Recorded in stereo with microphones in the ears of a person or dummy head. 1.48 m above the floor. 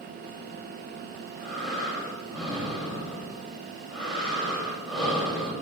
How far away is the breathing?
About 8.5 m.